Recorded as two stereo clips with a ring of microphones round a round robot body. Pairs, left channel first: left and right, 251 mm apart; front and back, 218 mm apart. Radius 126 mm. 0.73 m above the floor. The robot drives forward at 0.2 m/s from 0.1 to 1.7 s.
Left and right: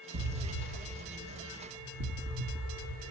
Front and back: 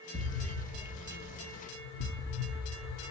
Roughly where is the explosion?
Right.